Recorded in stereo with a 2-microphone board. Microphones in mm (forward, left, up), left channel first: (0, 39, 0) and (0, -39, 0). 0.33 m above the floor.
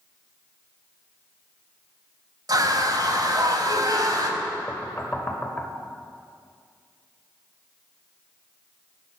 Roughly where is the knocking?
Left.